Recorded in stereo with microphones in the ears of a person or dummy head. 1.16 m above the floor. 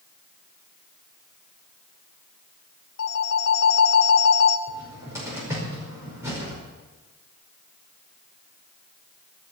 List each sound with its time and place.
3.0 s a phone ringing: 80° left, 1.2 m
4.7 s a cupboard door: 15° right (ahead or behind), 5 m